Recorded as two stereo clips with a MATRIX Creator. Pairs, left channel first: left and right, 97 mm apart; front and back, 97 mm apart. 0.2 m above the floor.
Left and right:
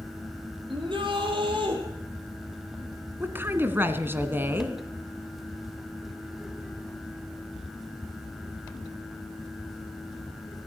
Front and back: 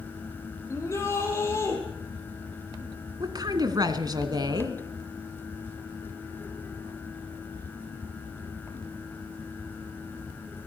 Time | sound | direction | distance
0.7 | a shout | 60° right | 7 m
3.2 | a woman speaking | 150° right | 1.9 m